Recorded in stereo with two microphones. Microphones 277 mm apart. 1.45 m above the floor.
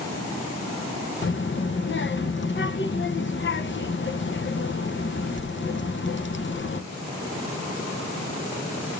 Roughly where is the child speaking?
Left.